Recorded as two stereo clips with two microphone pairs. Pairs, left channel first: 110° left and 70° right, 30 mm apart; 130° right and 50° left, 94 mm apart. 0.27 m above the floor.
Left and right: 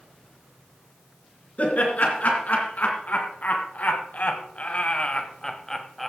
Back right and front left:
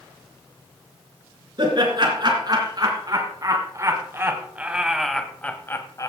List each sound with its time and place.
1.6 s laughter: 85° left, 3.5 m; by 6.1 s 160° right, 1.4 m